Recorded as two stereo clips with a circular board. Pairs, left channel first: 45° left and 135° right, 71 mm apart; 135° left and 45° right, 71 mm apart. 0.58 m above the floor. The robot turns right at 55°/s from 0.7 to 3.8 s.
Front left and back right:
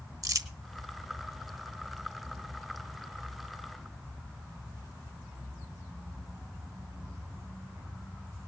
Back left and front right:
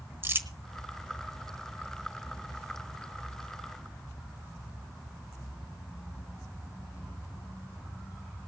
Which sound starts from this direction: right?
Crumpling, at 0.2 s.